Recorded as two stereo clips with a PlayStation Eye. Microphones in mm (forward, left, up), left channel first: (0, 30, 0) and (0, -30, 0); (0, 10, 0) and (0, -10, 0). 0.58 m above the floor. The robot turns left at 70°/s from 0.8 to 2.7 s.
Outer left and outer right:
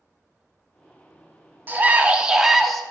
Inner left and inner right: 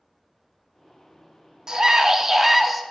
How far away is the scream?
About 0.7 m.